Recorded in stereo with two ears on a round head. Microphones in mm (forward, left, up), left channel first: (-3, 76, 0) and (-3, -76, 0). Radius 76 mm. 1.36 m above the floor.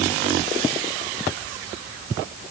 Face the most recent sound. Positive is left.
No sound to turn to.